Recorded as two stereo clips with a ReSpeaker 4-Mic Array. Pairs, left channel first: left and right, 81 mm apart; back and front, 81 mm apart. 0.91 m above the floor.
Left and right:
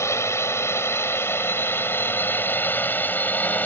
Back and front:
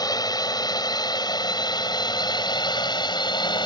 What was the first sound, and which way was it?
A drone, 145° left.